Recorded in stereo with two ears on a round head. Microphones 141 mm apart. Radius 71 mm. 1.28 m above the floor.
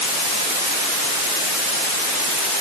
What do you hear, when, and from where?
Only background noise.